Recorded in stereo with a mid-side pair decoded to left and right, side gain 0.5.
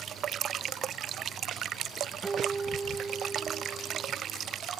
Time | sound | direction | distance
2.2 | a guitar | 20° right | ?